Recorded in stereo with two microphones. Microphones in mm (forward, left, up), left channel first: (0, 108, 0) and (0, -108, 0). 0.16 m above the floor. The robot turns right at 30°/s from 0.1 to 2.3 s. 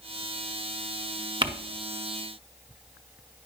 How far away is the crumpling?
About 0.8 m.